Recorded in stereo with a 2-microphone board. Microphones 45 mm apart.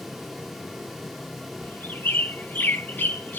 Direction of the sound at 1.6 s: 40° left (ahead or behind).